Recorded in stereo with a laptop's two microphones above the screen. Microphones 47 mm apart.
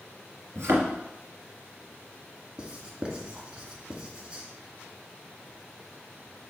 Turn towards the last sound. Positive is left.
turn(degrees=-25)  # may be behind; listen again after turning